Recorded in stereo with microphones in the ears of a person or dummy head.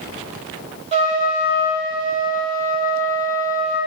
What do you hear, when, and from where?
0.9 s a trumpet: 35° right (ahead or behind), 0.6 m